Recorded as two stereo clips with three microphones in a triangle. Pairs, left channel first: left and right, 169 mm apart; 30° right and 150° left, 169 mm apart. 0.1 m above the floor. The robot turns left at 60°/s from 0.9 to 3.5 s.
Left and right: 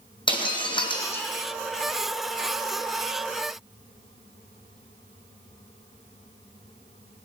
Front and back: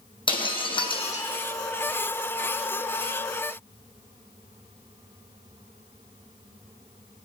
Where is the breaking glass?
30° left, 1.7 m; by 1.3 s 5° left, 1.7 m.